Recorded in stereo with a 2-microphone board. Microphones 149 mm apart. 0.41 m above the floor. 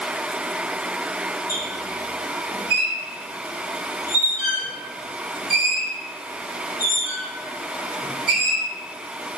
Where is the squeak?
80° left, 1.2 m.